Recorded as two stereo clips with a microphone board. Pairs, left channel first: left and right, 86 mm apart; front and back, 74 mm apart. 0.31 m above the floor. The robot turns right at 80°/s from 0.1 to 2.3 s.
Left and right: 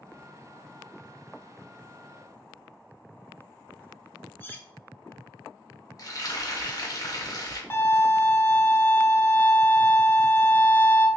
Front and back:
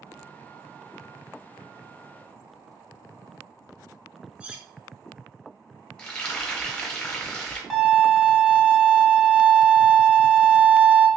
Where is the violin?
90° left, 0.8 m.